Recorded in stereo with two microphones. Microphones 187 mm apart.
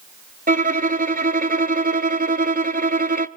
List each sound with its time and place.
0.5 s a violin: 50° right (ahead or behind), 0.7 m